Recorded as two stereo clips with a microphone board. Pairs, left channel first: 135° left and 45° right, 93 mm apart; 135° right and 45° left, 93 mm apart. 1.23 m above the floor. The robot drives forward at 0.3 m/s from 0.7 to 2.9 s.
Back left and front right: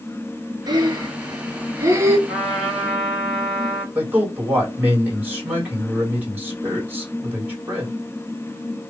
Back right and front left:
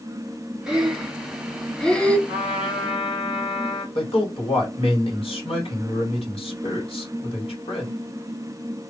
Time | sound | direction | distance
0.7 | breathing | 35° right | 1.0 m
2.3 | a trumpet | 130° right | 1.7 m
4.0 | a man speaking | 120° right | 2 m